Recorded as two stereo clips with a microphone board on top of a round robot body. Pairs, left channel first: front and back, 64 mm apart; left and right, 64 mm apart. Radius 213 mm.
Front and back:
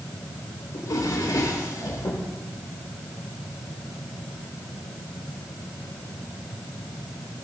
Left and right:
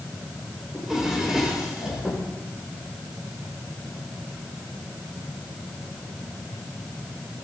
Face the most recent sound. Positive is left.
turn(degrees=-5)